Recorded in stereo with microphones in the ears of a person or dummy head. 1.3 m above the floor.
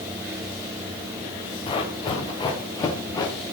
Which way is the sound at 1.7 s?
30° left (ahead or behind).